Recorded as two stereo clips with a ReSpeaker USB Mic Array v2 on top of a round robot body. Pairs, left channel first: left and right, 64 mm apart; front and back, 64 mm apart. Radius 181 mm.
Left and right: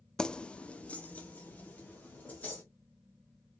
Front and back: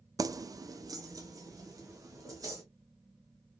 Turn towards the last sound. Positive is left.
turn(degrees=155)